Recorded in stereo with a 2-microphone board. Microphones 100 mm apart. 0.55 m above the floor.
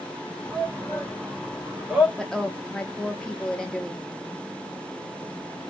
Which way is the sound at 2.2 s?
5° left (ahead or behind).